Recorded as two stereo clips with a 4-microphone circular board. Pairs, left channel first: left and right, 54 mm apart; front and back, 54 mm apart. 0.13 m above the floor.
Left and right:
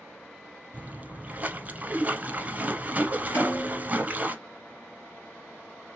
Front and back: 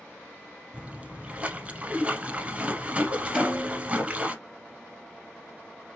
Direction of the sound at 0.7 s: 125° right.